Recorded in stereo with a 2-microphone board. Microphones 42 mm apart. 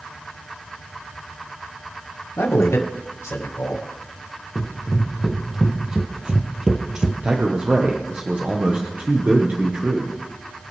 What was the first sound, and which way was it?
A man speaking, 80° left.